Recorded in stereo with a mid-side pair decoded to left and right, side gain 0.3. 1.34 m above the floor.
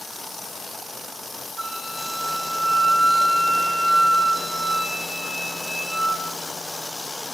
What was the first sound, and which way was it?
A flute, 55° right.